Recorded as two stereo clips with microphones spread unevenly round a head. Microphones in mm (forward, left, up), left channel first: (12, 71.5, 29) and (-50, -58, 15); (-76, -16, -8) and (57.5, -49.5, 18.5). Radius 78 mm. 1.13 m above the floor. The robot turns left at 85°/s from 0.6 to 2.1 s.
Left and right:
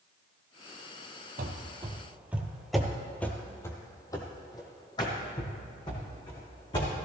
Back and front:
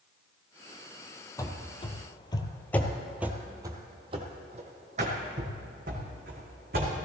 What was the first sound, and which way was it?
Running footsteps, 120° right.